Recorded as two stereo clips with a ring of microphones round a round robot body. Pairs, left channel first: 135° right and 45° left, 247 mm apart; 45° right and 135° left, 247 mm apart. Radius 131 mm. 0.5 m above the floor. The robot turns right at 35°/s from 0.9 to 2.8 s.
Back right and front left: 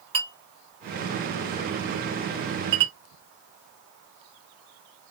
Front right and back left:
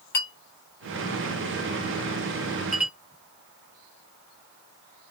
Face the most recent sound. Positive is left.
turn(degrees=50)